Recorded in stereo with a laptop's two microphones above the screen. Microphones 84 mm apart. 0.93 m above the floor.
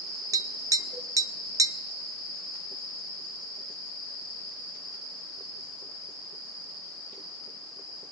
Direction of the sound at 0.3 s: 40° right (ahead or behind).